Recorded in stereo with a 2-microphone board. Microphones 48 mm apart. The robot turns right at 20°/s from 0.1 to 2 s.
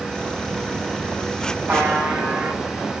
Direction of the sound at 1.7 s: 40° right (ahead or behind).